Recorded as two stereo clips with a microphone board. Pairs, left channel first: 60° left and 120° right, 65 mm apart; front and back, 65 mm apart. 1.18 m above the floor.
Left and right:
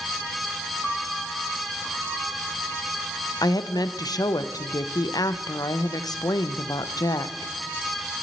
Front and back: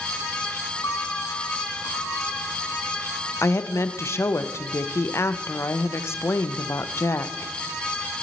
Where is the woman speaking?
45° left, 0.6 m.